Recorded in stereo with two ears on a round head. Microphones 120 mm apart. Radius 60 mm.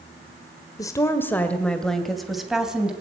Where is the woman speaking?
25° left (ahead or behind), 1.4 m; by 2.9 s 5° right (ahead or behind), 2.5 m.